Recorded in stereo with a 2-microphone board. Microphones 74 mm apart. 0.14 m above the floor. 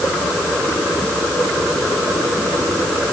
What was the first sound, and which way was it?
Only background noise.